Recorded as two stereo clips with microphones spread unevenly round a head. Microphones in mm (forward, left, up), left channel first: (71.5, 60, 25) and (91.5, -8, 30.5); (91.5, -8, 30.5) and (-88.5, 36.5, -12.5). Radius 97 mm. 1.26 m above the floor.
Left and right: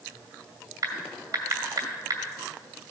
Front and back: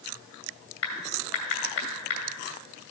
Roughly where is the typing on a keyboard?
Ahead right.